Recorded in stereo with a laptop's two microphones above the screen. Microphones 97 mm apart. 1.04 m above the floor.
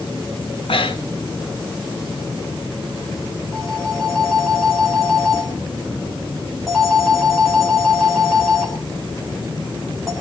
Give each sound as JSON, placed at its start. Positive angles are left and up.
{"t": 0.7, "sound": "breathing", "side_deg": 70, "distance_m": 1.6}
{"t": 3.5, "sound": "a phone ringing", "side_deg": 5, "distance_m": 3.5}